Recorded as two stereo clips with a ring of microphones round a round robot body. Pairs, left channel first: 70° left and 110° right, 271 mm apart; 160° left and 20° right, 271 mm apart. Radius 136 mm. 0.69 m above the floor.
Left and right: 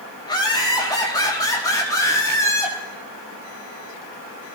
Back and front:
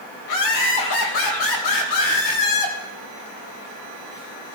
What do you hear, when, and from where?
0.2 s laughter: 140° left, 4.5 m; by 2.8 s 145° left, 6 m